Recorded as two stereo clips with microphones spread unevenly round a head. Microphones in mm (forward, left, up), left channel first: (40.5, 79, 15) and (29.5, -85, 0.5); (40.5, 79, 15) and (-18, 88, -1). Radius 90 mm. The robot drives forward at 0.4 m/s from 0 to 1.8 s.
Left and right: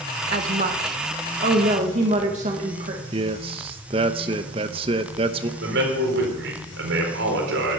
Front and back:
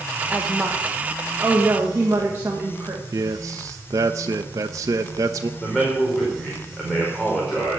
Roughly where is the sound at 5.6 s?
Right.